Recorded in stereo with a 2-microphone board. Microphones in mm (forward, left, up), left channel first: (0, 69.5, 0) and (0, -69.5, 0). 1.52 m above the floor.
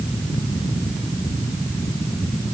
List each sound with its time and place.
Only background noise.